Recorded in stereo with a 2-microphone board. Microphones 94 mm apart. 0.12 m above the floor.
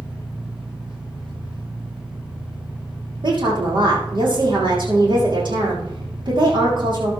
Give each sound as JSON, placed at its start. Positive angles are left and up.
{"t": 0.0, "sound": "an engine running", "side_deg": -75, "distance_m": 6.5}
{"t": 3.2, "sound": "a woman speaking", "side_deg": -60, "distance_m": 7.0}